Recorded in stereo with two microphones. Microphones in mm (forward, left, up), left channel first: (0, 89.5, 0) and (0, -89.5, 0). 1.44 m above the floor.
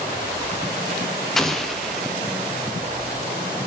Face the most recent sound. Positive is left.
turn(degrees=0)  # may be behind; listen again after turning